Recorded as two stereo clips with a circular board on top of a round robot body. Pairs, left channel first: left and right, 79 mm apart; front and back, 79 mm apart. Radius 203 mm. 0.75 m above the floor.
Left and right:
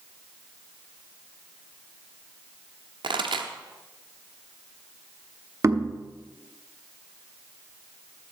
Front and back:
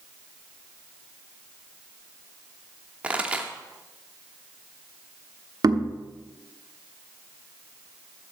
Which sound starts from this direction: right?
A pop, at 3.0 s.